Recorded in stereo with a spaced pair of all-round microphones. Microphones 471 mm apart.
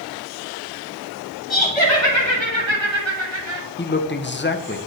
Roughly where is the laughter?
Right.